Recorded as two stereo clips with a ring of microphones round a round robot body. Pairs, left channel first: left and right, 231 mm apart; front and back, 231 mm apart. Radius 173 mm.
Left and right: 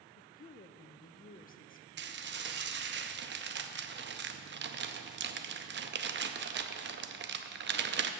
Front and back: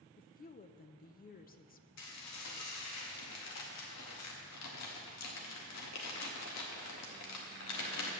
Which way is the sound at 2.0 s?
45° right.